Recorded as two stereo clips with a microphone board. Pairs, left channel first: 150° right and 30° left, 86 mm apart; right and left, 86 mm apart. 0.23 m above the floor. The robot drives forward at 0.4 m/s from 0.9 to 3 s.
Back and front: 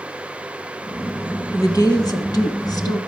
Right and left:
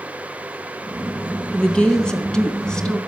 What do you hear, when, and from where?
1.5 s a woman speaking: 160° right, 1.3 m; by 3.0 s 170° right, 1.7 m